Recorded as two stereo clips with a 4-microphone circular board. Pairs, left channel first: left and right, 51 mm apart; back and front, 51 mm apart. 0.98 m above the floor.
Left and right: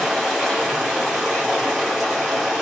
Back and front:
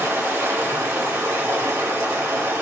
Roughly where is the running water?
Ahead.